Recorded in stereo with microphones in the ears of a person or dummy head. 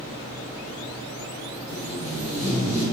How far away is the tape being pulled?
About 1.3 m.